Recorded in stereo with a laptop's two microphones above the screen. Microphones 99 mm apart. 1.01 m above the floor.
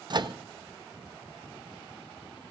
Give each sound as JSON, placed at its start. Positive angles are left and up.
{"t": 0.1, "sound": "a microwave", "side_deg": -45, "distance_m": 0.7}